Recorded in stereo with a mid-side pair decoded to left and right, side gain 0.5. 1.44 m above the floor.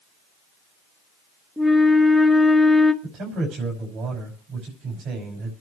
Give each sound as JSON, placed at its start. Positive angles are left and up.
{"t": 1.6, "sound": "a flute", "azimuth_deg": 5, "distance_m": 1.7}
{"t": 3.0, "sound": "a man speaking", "azimuth_deg": -70, "distance_m": 6.0}